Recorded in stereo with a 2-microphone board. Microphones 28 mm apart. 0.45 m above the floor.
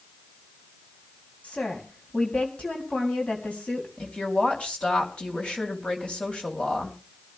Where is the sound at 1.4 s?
50° left (ahead or behind), 2.5 m.